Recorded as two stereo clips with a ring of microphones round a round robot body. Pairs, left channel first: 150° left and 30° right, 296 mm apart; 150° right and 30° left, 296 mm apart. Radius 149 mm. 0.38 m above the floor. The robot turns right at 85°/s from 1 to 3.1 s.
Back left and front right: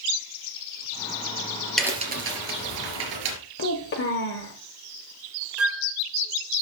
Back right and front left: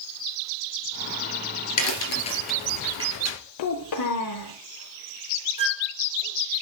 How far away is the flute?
About 1.5 m.